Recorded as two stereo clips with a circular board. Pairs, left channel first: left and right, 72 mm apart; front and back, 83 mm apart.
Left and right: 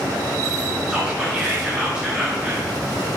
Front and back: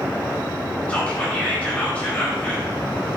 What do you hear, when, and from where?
0.9 s whispering: 35° right, 0.9 m